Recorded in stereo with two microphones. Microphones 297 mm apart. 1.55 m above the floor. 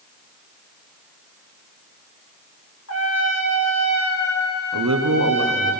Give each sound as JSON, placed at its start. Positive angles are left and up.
{"t": 2.9, "sound": "a trumpet", "side_deg": 55, "distance_m": 1.9}
{"t": 4.7, "sound": "a man speaking", "side_deg": -75, "distance_m": 1.2}